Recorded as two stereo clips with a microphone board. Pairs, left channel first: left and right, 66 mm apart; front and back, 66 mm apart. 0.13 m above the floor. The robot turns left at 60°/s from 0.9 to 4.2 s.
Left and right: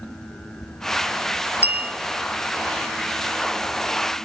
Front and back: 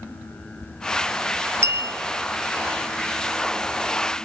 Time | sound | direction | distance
1.6 | a bell | 145° right | 1.4 m